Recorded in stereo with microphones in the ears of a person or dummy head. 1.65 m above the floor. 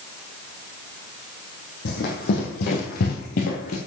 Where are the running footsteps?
55° left (ahead or behind), 3 m; by 3.8 s 40° left (ahead or behind), 2 m.